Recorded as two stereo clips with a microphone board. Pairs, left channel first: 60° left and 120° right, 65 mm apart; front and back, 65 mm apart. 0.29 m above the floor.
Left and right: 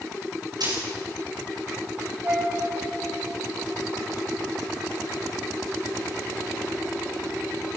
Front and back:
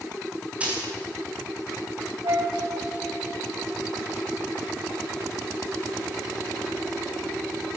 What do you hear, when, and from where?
0.6 s a dropped coin: 110° right, 9.5 m
2.2 s a flute: 175° right, 4 m